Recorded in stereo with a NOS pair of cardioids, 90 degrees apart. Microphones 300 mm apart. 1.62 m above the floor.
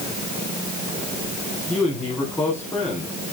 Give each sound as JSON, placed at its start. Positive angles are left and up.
{"t": 1.7, "sound": "a man speaking", "azimuth_deg": 5, "distance_m": 5.0}